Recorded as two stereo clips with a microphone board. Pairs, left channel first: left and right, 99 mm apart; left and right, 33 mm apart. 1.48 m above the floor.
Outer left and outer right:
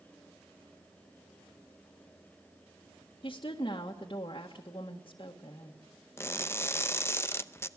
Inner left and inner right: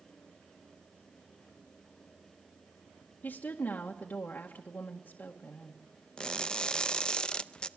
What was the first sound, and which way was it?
A woman speaking, 55° left (ahead or behind).